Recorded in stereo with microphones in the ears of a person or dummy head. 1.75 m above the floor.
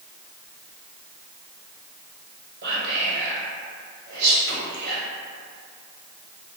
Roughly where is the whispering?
Right.